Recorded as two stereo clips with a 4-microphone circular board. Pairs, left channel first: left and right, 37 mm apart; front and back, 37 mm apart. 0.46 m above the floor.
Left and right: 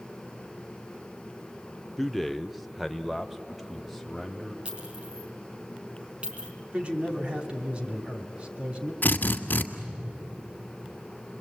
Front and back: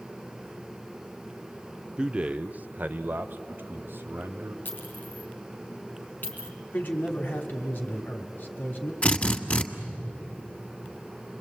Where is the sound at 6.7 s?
35° right, 3 m.